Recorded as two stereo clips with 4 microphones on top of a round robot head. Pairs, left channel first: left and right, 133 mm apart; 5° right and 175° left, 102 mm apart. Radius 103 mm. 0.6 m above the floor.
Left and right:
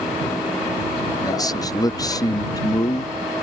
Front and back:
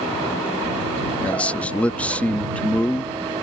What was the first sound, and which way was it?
A man speaking, 60° left.